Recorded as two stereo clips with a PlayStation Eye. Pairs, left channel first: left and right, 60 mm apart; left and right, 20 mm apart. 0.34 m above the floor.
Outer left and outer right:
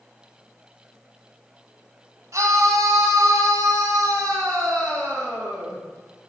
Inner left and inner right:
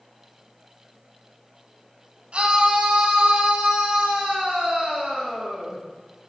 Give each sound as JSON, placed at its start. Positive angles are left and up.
{"t": 2.3, "sound": "a scream", "side_deg": -60, "distance_m": 2.5}